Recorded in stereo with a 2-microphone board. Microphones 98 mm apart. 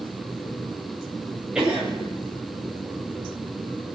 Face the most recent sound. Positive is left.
turn(degrees=-5)  # may be behind; listen again after turning